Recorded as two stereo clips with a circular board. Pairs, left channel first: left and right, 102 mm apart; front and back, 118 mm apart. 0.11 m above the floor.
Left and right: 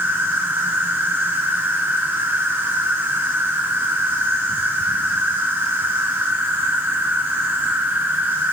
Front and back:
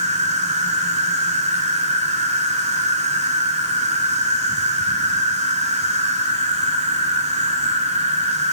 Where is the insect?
160° right, 1.3 m.